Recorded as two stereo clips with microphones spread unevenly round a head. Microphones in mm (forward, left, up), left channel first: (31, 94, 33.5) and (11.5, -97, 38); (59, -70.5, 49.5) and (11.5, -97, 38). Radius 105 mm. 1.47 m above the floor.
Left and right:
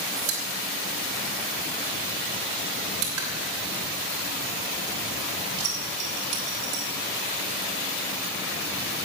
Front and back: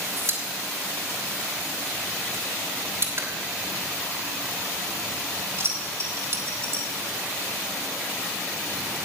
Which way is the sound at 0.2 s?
115° right.